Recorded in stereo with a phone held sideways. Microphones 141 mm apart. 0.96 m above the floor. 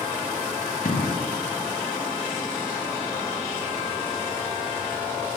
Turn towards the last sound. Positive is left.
turn(degrees=70)  # may be behind; listen again after turning